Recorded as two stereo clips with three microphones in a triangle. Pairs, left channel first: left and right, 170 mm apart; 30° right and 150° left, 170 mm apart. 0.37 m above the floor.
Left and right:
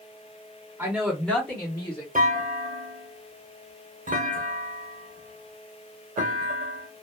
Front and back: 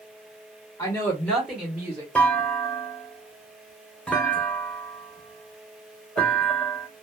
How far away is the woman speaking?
About 1.2 m.